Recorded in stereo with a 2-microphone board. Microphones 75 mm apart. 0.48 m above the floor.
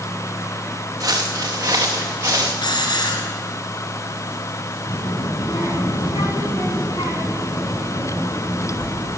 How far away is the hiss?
About 2.5 m.